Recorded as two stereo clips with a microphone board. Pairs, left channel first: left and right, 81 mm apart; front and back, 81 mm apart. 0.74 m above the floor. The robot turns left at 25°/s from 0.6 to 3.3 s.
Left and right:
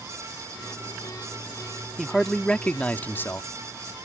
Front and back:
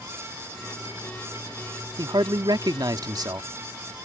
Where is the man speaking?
Straight behind; by 3.5 s 150° left.